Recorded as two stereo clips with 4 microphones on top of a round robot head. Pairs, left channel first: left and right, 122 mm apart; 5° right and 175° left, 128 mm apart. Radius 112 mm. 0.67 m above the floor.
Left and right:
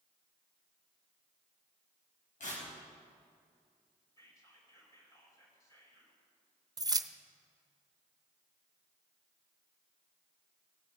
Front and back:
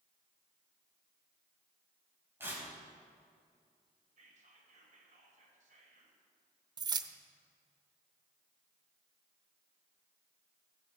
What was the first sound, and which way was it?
Tearing paper, 105° left.